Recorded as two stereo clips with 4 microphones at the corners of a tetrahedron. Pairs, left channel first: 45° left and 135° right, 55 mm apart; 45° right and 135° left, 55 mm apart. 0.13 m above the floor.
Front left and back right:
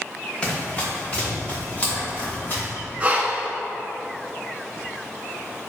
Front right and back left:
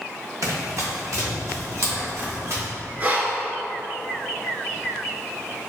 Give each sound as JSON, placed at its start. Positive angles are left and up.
{"t": 0.4, "sound": "running footsteps", "azimuth_deg": 110, "distance_m": 1.8}
{"t": 3.0, "sound": "breathing", "azimuth_deg": 175, "distance_m": 0.5}